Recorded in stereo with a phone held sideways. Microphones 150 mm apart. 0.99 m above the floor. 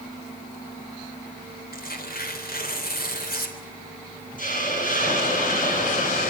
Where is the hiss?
65° left (ahead or behind), 6 m.